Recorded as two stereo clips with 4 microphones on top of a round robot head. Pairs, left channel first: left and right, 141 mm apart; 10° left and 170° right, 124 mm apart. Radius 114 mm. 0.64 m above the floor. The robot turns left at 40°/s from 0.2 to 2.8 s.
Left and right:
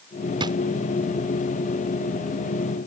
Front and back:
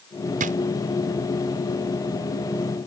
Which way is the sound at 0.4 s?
150° right.